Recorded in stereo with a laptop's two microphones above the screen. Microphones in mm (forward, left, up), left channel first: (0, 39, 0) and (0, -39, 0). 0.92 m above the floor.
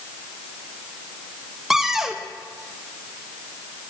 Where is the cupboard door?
5° right (ahead or behind), 0.5 m.